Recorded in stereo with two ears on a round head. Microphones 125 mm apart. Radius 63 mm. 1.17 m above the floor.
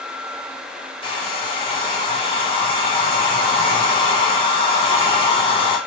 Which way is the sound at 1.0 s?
35° left (ahead or behind).